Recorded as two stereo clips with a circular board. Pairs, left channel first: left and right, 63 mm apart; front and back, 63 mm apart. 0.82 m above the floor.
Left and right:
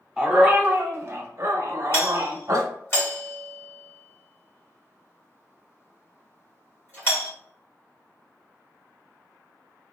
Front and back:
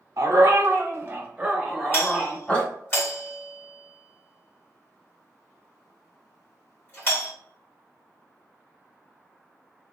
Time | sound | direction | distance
0.2 | a dog barking | 165° right | 1.0 m
1.9 | a doorbell | 45° left | 2.0 m